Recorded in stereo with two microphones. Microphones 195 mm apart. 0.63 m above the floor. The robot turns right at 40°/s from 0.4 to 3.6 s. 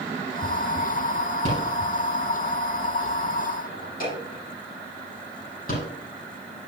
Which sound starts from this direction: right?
A rattle, at 1.4 s.